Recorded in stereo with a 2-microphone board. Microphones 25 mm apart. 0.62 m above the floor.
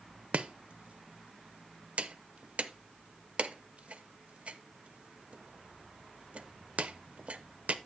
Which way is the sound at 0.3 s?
60° right (ahead or behind).